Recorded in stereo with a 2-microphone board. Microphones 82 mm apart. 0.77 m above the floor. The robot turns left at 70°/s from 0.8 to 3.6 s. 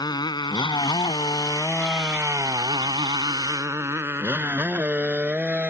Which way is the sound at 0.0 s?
60° left (ahead or behind).